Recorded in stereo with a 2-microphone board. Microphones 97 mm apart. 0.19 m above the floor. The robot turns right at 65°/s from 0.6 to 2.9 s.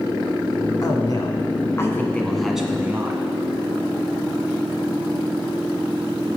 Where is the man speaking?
75° left, 1.4 m; by 3.2 s 150° right, 1.4 m.